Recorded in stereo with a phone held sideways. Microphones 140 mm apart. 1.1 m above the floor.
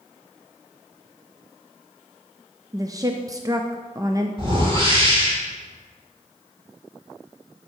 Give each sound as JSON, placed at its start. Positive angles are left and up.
{"t": 2.7, "sound": "a woman speaking", "side_deg": -25, "distance_m": 0.6}
{"t": 4.4, "sound": "a whoosh", "side_deg": -40, "distance_m": 3.0}